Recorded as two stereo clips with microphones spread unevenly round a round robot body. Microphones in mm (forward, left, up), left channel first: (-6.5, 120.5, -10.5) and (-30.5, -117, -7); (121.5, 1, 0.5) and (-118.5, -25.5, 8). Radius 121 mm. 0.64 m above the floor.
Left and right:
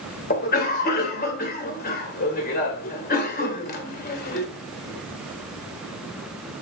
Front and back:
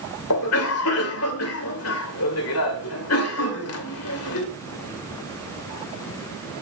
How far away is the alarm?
I don't hear an alarm.